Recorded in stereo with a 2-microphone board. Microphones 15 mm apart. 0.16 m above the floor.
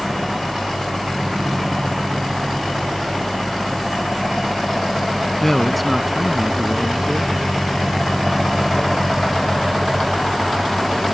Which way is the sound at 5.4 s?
15° left (ahead or behind).